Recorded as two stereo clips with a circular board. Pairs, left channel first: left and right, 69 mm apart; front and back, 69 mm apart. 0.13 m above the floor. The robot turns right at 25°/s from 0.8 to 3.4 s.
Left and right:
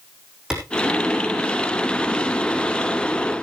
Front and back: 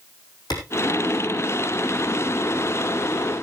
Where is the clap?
10° right, 5.5 m.